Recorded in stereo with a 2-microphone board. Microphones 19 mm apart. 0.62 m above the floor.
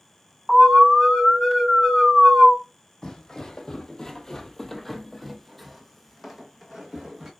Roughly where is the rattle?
No rattle in this recording.